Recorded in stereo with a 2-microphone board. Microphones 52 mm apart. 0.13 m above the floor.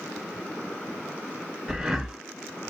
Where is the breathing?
10° right (ahead or behind), 1.0 m.